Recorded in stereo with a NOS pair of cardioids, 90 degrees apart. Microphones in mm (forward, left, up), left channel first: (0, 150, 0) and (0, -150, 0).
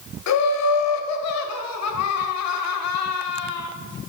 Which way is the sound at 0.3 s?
60° left.